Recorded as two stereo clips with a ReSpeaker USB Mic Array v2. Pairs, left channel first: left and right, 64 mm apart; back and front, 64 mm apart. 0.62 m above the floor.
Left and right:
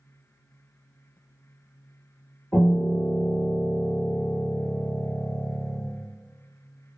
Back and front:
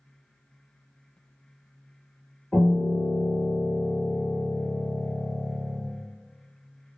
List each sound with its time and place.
2.5 s a piano: 100° left, 1.2 m